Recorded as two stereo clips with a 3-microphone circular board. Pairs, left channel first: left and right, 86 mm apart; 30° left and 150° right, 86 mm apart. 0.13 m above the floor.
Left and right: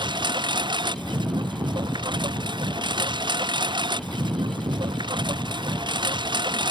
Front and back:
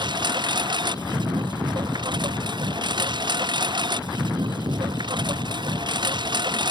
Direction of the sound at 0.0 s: 120° right.